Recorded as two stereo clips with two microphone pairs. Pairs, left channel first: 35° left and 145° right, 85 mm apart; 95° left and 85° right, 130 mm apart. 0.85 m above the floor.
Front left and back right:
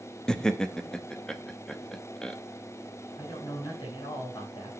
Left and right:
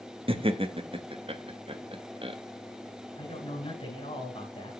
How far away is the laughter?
About 1.0 m.